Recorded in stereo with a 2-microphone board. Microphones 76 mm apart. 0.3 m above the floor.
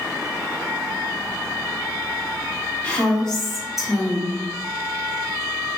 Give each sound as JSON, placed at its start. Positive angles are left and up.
{"t": 2.8, "sound": "a woman speaking", "side_deg": 15, "distance_m": 1.5}